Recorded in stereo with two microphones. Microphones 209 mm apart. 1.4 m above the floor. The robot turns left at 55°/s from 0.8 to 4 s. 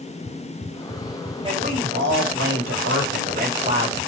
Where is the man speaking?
25° right, 3.5 m; by 4.0 s 165° right, 3.5 m.